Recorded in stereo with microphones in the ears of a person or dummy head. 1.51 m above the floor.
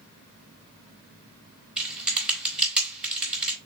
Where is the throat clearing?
I don't hear throat clearing.